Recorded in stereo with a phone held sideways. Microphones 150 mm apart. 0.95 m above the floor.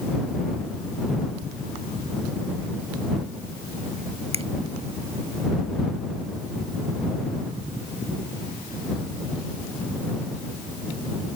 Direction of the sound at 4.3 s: 40° right (ahead or behind).